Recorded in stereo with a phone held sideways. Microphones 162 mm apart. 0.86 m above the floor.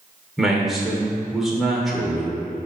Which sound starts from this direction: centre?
A man speaking, at 0.4 s.